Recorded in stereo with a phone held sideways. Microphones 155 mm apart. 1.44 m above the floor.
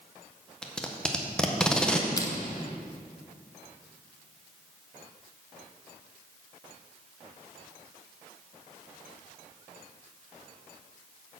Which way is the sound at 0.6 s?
5° left (ahead or behind).